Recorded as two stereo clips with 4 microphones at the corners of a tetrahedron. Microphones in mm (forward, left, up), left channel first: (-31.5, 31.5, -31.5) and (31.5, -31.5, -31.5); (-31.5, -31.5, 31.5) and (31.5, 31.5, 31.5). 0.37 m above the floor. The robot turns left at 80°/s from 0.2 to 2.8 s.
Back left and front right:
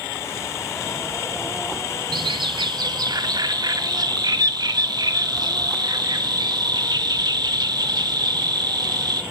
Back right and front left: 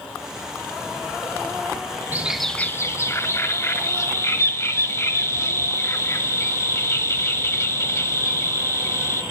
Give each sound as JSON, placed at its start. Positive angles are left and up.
{"t": 2.1, "sound": "a bird", "azimuth_deg": -25, "distance_m": 0.8}